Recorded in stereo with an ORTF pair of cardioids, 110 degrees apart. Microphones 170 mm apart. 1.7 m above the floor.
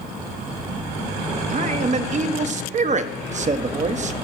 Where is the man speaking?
45° right, 1.4 m.